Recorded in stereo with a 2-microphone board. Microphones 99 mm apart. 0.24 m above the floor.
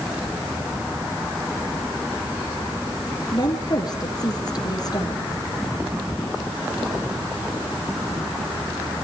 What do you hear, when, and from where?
3.3 s a woman speaking: 40° left (ahead or behind), 3.5 m